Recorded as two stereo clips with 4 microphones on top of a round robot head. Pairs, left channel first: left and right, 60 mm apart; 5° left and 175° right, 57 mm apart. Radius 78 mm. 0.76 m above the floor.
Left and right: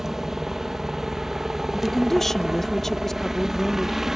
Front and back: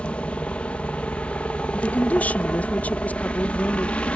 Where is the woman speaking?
10° left.